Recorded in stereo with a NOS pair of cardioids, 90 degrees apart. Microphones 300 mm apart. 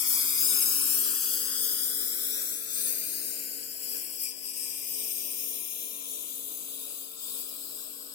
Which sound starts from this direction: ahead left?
A lawn mower, at 0.0 s.